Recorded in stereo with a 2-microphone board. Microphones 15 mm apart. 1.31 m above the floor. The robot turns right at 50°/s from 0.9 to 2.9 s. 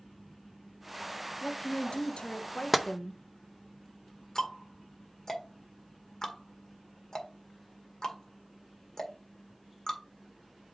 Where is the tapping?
Centre (ahead or behind), 0.5 m; by 2.9 s 5° right (ahead or behind), 0.5 m.